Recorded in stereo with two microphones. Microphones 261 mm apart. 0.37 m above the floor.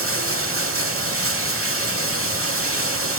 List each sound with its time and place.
0.0 s running water: 55° right (ahead or behind), 0.8 m